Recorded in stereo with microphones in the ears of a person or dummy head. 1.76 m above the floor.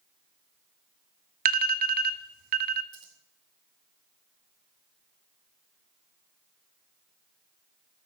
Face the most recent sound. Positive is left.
turn(degrees=-35)  # may be behind; listen again after turning